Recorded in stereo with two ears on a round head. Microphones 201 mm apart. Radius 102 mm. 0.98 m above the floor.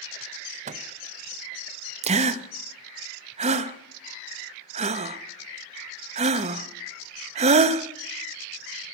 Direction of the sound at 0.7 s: 35° right (ahead or behind).